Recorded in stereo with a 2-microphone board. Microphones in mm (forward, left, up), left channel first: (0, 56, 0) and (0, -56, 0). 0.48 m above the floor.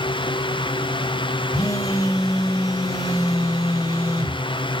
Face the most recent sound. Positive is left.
turn(degrees=30)  # may be behind; listen again after turning